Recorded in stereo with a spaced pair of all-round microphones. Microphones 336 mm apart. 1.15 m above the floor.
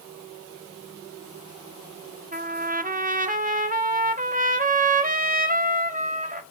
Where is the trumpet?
25° right (ahead or behind), 0.5 m.